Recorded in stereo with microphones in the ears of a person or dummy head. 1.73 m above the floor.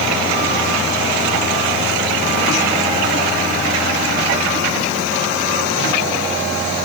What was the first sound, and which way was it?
Only background noise.